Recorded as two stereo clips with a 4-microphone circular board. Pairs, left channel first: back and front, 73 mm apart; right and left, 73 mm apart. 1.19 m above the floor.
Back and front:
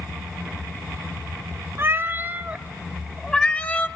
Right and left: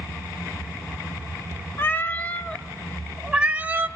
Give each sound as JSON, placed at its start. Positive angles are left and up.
{"t": 1.8, "sound": "a cat meowing", "azimuth_deg": -40, "distance_m": 1.1}